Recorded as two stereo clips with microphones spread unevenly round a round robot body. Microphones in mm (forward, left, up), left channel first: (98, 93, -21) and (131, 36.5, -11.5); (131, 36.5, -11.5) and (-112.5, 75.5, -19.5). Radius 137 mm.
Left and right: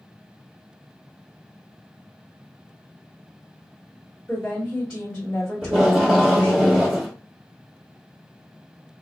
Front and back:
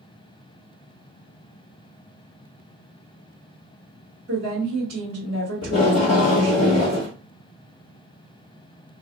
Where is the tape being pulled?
80° right, 1.8 m.